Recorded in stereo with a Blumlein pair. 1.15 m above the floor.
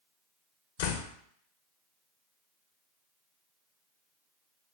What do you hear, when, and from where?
0.8 s a door slam: 50° left, 0.5 m